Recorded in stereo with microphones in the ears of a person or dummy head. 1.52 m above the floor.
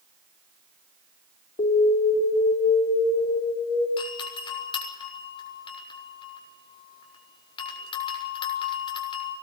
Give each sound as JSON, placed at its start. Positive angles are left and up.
{"t": 1.6, "sound": "an alarm", "side_deg": 35, "distance_m": 4.5}
{"t": 4.0, "sound": "a doorbell", "side_deg": 30, "distance_m": 6.5}